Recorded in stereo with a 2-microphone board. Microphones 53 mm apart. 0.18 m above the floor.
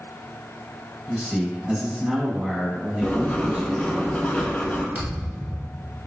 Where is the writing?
20° left (ahead or behind), 0.5 m.